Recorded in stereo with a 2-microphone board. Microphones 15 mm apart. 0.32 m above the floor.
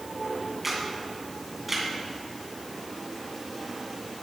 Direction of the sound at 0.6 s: 15° right (ahead or behind).